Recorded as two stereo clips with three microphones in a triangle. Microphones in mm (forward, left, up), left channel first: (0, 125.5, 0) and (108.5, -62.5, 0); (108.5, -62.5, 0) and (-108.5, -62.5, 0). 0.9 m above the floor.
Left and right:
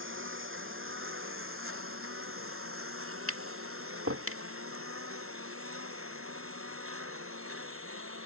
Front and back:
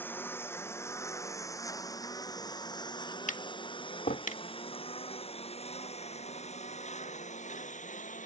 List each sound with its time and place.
0.0 s a lawn mower: 80° right; by 8.3 s 55° right
3.3 s tapping: 55° right